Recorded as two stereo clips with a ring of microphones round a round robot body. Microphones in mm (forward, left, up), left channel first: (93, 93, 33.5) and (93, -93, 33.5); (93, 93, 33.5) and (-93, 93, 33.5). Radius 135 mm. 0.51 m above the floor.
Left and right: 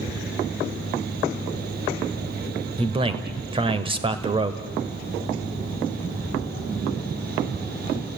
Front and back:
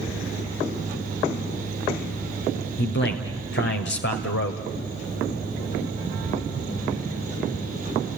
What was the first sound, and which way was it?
A man speaking, 30° right.